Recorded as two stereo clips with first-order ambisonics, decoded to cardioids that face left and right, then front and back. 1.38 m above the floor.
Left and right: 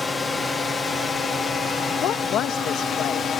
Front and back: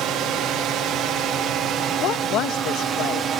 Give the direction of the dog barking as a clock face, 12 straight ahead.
No dog barking in this recording.